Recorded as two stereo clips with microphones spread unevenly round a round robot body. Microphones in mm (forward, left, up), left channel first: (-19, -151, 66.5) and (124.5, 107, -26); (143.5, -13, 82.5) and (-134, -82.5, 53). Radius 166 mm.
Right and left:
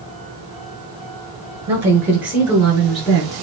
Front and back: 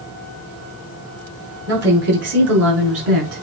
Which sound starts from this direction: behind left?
A woman speaking, at 1.7 s.